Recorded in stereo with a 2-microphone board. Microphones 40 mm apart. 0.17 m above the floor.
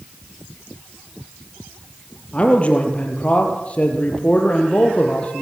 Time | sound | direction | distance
2.3 | a man speaking | 30° left (ahead or behind) | 4 m